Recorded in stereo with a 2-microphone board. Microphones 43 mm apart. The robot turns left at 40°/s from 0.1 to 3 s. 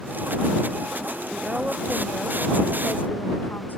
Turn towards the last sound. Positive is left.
turn(degrees=130)